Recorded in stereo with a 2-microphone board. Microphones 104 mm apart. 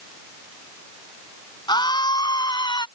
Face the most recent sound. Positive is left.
turn(degrees=45)  # may be behind; listen again after turning